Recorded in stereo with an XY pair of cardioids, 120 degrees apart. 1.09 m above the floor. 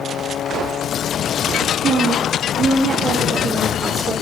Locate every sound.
1.8 s a woman speaking: 50° right, 1.6 m; by 4.1 s 30° right, 2.5 m